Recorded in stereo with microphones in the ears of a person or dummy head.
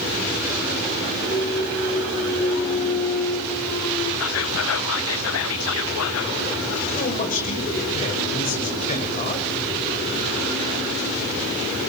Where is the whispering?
75° left (ahead or behind), 0.8 m.